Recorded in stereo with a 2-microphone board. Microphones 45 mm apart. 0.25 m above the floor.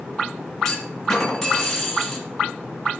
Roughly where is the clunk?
Centre.